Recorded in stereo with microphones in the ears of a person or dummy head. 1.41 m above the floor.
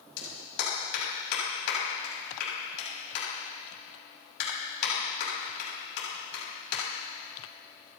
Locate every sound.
0.2 s a clap: 55° left (ahead or behind), 7 m